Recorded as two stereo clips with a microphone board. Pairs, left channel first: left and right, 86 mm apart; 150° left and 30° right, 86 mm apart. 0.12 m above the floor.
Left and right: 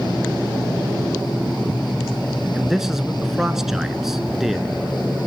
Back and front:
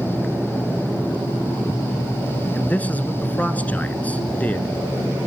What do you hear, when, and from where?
2.5 s a man speaking: 170° right, 1.1 m